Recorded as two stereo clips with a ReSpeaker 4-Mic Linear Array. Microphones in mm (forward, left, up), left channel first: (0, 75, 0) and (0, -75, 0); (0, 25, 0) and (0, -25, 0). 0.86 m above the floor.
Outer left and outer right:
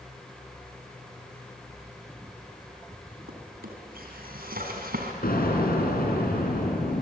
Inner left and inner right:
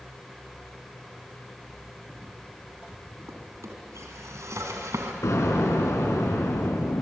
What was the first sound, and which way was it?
A drawer, 85° right.